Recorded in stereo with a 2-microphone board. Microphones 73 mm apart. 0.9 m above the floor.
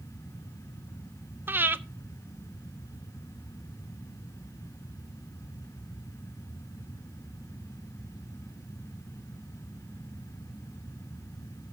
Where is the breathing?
30° right (ahead or behind), 0.6 m.